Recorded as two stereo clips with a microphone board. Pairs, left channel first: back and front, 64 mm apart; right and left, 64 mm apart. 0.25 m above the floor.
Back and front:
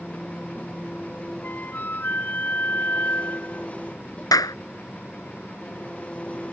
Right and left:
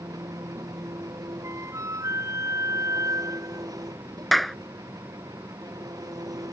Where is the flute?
120° left.